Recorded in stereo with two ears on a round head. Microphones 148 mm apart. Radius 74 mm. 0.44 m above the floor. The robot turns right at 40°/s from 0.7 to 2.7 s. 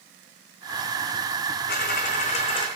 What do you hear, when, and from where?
1.7 s a dropped coin: 110° left, 1.4 m; by 2.7 s 150° left, 1.4 m